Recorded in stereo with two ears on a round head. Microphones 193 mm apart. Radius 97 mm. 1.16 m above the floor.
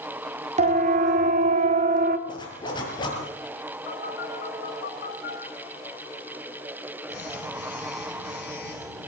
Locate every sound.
0.6 s a siren: 35° right (ahead or behind), 3 m; by 2.2 s 40° right (ahead or behind), 1.9 m
2.3 s a zipper: 20° left (ahead or behind), 7.5 m
3.9 s a phone buzzing: 50° left (ahead or behind), 9.5 m